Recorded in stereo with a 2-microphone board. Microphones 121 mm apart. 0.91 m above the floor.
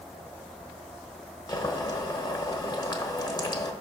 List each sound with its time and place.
1.5 s boiling: 35° left (ahead or behind), 1.0 m